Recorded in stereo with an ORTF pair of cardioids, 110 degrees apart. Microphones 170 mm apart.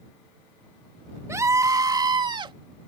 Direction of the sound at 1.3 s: 15° right.